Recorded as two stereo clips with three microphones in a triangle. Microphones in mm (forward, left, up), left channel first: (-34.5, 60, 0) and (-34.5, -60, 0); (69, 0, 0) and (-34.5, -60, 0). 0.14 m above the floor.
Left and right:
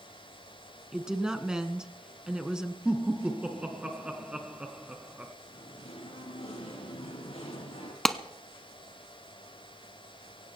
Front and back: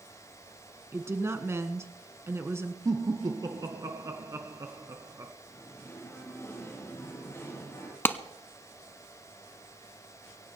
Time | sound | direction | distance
0.9 | a woman speaking | 165° right | 1.4 m
2.9 | laughter | 160° right | 1.2 m
5.5 | singing | 95° left | 4 m
8.1 | a clap | 5° left | 0.9 m